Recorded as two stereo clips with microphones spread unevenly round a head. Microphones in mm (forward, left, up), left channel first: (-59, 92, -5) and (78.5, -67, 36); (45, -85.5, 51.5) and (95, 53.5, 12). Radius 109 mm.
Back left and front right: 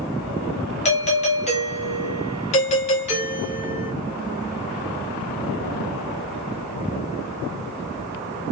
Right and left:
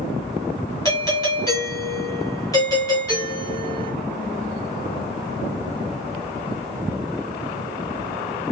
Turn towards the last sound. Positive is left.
turn(degrees=175)